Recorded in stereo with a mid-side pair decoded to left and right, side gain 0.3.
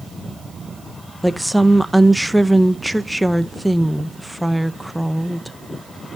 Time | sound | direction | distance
1.2 | a woman speaking | 5° left | 0.9 m